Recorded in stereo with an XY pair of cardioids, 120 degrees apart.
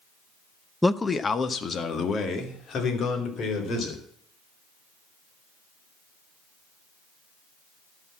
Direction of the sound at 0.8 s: 5° left.